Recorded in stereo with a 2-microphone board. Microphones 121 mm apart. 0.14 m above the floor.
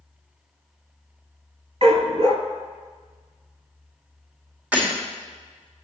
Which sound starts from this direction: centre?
Breaking glass, at 4.7 s.